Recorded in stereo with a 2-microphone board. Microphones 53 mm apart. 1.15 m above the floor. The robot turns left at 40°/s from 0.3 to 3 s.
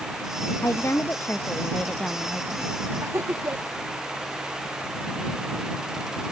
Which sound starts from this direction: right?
Laughter, at 3.0 s.